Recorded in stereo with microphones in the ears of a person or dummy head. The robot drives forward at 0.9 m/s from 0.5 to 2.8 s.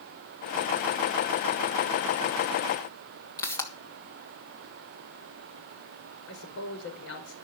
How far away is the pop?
About 2.5 m.